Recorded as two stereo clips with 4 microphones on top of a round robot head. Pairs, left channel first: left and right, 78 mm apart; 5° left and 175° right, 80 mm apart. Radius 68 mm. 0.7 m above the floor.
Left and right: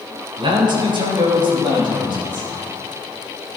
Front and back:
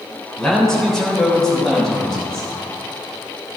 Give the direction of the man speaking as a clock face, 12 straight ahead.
3 o'clock.